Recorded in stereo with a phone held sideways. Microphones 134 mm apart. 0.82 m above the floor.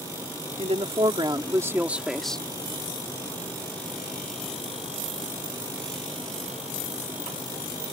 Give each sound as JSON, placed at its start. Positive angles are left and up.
{"t": 0.6, "sound": "a woman speaking", "side_deg": -50}